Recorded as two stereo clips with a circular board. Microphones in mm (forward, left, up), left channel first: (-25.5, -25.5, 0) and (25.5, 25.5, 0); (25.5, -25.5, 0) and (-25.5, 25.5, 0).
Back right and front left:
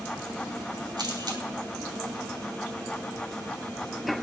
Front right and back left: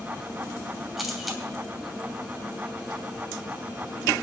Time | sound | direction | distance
1.0 | a camera shutter | 45° left | 2.5 m